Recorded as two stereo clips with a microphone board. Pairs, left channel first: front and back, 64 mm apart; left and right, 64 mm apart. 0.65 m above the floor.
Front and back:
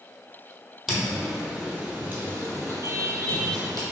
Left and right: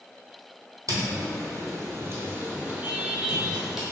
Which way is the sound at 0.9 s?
90° right.